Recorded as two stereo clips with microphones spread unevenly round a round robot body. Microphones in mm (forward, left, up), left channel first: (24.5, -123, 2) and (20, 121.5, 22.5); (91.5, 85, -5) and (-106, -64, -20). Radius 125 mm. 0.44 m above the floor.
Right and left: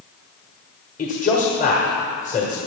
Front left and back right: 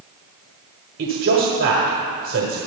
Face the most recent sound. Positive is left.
turn(degrees=-135)